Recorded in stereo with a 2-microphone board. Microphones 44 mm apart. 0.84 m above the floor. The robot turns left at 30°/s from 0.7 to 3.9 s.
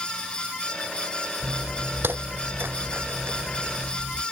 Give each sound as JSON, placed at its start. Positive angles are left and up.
{"t": 1.4, "sound": "footsteps", "side_deg": -60}